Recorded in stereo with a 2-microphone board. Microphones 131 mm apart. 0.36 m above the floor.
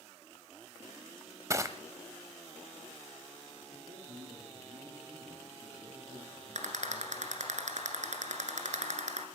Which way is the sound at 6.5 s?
75° right (ahead or behind).